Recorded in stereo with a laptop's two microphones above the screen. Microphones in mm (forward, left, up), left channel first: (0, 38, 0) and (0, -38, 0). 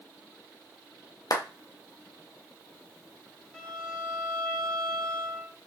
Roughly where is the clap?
Left.